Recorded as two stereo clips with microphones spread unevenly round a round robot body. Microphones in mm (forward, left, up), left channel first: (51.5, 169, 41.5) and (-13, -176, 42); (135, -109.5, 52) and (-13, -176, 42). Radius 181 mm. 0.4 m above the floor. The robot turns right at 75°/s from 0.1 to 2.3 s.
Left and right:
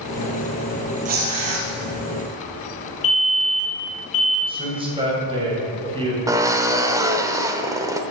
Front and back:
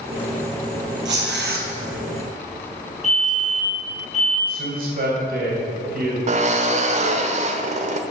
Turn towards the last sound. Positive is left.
turn(degrees=180)